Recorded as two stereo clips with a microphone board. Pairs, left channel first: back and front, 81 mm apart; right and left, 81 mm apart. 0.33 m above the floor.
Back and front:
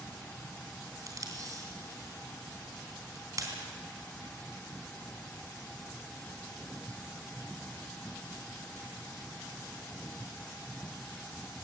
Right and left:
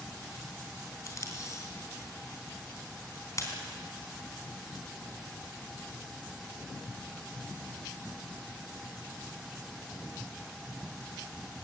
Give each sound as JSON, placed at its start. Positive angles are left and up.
{"t": 1.1, "sound": "tape being pulled", "azimuth_deg": -40, "distance_m": 3.5}